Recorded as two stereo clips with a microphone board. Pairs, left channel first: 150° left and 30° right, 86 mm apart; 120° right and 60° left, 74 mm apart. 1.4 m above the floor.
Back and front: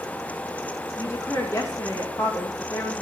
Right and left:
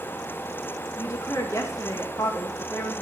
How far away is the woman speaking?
About 1.9 m.